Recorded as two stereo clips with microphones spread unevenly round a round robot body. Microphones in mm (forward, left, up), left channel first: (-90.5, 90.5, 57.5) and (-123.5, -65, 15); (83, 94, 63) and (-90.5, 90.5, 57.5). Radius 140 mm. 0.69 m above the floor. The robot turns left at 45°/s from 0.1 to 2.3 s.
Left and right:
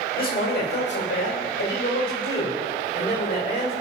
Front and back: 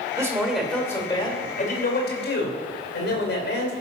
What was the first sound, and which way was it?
A man speaking, 110° left.